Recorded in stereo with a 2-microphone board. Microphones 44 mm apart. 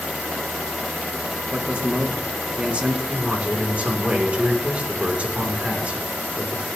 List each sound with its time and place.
1.5 s a man speaking: 30° right (ahead or behind), 1.3 m
3.1 s a man speaking: 30° right (ahead or behind), 2.5 m